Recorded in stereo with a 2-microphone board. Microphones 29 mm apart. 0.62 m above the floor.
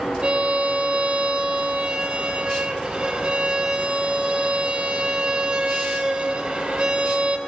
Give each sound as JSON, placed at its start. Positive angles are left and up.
{"t": 0.2, "sound": "a violin", "side_deg": -35, "distance_m": 1.7}